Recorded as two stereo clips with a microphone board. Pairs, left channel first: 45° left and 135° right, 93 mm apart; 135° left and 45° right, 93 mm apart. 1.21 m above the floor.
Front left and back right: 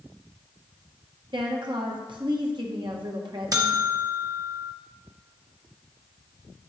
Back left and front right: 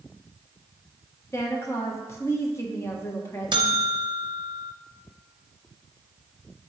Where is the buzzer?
85° right, 0.7 m.